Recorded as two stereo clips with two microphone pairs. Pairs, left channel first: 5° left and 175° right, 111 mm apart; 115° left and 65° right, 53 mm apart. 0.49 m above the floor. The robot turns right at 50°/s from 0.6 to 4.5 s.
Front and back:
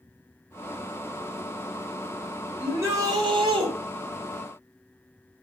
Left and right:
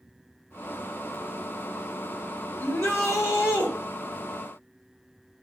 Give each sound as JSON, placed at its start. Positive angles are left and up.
{"t": 2.6, "sound": "a shout", "azimuth_deg": 115, "distance_m": 1.7}